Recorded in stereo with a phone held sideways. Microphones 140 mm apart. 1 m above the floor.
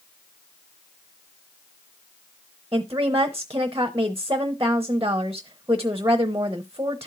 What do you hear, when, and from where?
2.7 s a woman speaking: 20° right (ahead or behind), 0.8 m